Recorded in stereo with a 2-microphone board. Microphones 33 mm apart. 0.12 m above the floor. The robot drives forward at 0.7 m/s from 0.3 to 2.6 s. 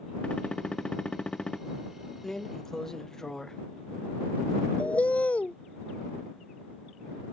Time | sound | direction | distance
0.2 | a gunshot | 35° left (ahead or behind) | ?
2.2 | a drawer | 15° left (ahead or behind) | ?
4.8 | a bird | 45° left (ahead or behind) | ?